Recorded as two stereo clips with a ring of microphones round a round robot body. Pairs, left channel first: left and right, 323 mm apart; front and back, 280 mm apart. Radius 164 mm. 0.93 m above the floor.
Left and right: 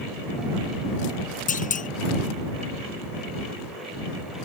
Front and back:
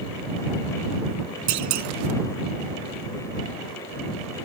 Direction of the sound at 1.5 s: 155° left.